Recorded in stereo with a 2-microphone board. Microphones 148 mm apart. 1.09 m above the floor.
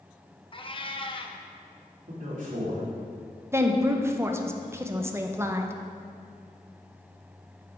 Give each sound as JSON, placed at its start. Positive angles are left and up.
{"t": 0.5, "sound": "a cat meowing", "side_deg": 35, "distance_m": 0.5}
{"t": 2.1, "sound": "a man speaking", "side_deg": -60, "distance_m": 2.5}
{"t": 3.5, "sound": "a woman speaking", "side_deg": -20, "distance_m": 0.6}